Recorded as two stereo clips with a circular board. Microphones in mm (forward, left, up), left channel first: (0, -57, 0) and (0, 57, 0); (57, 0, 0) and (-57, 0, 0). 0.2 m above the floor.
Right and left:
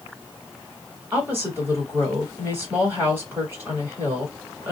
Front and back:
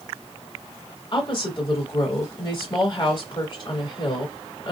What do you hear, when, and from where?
1.1 s a woman speaking: 25° left, 1.7 m